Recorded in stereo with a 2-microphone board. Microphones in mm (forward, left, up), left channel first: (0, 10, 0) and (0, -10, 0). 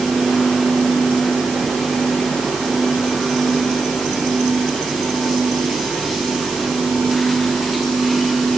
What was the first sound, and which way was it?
Only background noise.